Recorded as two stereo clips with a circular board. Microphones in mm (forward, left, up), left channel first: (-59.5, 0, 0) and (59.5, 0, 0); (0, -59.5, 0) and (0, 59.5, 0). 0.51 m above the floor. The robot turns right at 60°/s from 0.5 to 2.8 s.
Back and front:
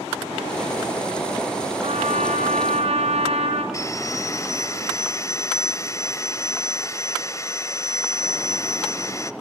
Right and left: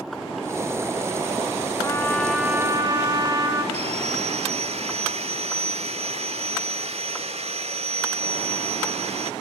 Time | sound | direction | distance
1.8 | a trumpet | 30° right | 2 m
3.7 | sawing | 120° left | 0.9 m